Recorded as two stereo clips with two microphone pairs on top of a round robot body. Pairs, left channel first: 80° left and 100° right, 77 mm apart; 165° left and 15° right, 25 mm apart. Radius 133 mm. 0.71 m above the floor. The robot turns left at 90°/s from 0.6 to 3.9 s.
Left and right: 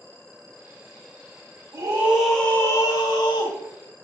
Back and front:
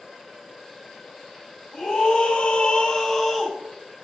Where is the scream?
140° right, 3.5 m; by 3.6 s 55° left, 3.5 m.